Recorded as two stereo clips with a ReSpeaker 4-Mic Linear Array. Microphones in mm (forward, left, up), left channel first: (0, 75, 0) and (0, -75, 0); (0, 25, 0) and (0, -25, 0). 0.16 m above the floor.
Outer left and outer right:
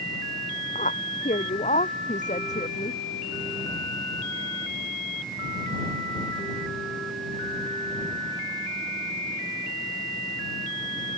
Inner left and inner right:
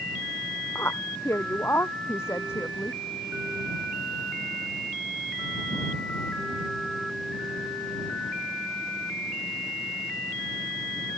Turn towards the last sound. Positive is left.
turn(degrees=50)  # may be behind; listen again after turning